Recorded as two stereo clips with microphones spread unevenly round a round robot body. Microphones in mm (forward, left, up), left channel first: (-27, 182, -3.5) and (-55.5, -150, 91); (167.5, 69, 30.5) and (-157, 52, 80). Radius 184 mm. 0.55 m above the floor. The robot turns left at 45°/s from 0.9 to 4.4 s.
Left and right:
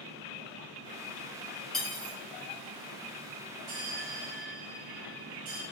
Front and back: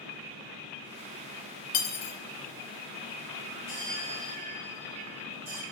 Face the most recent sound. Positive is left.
turn(degrees=-150)